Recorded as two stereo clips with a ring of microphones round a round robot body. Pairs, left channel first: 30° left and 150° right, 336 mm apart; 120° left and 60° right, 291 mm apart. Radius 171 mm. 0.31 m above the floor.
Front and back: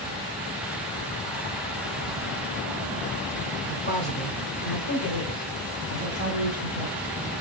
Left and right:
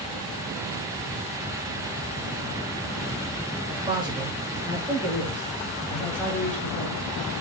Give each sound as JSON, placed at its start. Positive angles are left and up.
{"t": 3.7, "sound": "a man speaking", "azimuth_deg": -5, "distance_m": 1.7}